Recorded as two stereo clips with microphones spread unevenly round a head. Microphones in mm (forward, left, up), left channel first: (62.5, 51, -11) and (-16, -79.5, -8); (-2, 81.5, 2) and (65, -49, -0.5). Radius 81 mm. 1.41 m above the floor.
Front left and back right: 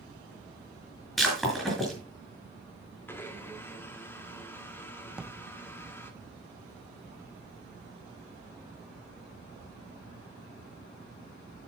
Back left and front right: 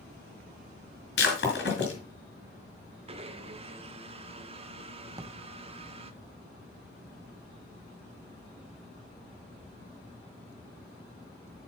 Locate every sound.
1.2 s breaking glass: 145° left, 4.5 m
3.1 s a blender: 15° right, 1.4 m
5.1 s a drawer: 50° right, 0.5 m